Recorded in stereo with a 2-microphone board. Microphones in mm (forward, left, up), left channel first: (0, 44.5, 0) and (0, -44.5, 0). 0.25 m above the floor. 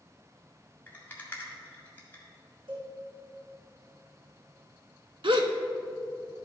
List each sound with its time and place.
0.9 s a rattle: 20° left (ahead or behind), 1.8 m
2.7 s a cowbell: 65° right (ahead or behind), 3 m
5.2 s a gasp: 75° right (ahead or behind), 0.7 m